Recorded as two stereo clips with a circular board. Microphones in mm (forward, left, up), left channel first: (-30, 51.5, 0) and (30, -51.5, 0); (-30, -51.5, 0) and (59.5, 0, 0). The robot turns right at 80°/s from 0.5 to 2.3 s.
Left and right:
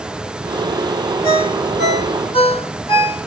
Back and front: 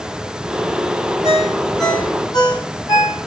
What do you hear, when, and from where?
1.2 s a ringtone: 75° left, 2 m; by 3.3 s 160° left, 2 m